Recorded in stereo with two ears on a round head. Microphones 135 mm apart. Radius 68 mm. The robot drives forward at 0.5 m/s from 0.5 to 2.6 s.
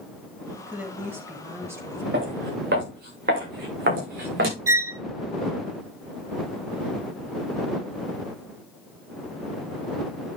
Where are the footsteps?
80° right, 8 m; by 4.6 s 75° right (ahead or behind), 6 m.